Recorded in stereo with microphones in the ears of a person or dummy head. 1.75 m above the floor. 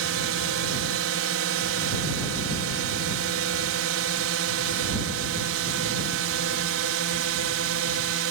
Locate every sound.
0.0 s a drone: 75° right (ahead or behind)